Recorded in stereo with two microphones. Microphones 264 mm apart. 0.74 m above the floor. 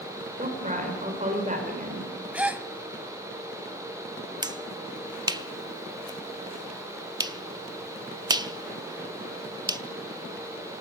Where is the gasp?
5° right (ahead or behind), 1.0 m.